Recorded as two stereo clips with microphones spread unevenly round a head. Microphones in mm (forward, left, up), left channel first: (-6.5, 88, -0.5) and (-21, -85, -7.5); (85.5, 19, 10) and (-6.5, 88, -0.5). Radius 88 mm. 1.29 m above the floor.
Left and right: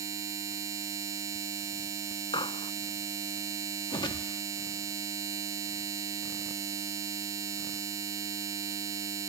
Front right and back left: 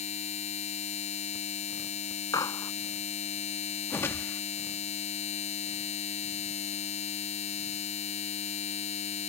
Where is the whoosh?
25° left.